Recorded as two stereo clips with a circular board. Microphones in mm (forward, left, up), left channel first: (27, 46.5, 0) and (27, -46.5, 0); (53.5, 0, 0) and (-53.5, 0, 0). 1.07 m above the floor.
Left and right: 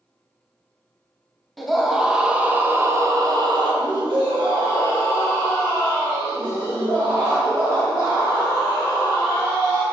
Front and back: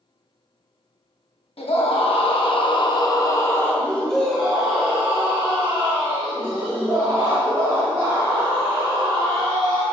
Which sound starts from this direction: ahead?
A scream, at 1.6 s.